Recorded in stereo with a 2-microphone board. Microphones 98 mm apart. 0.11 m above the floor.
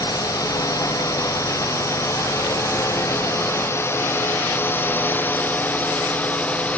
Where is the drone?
35° left (ahead or behind); by 6.8 s 15° left (ahead or behind).